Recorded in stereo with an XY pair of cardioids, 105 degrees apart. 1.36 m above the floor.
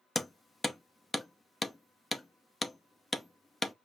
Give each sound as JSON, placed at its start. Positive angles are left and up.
{"t": 0.1, "sound": "hammering", "azimuth_deg": 15, "distance_m": 0.7}